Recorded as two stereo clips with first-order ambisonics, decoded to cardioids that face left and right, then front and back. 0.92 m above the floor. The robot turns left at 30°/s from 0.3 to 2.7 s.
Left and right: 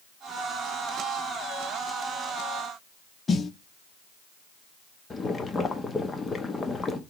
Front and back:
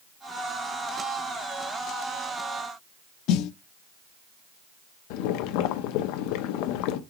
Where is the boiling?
15° left, 0.7 m.